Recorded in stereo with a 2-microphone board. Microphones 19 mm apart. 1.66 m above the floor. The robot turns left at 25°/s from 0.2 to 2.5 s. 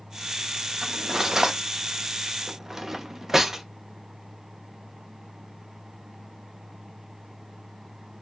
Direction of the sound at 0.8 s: 30° right (ahead or behind).